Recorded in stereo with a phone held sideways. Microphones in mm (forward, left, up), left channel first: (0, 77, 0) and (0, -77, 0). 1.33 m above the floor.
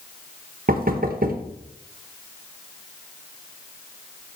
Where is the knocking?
60° right (ahead or behind), 0.7 m.